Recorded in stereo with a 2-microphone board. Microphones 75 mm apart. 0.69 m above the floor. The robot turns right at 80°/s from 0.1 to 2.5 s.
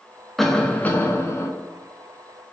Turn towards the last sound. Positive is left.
turn(degrees=170)